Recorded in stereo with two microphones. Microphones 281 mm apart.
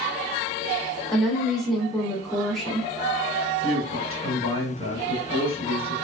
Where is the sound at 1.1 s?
Centre (ahead or behind), 1.0 m.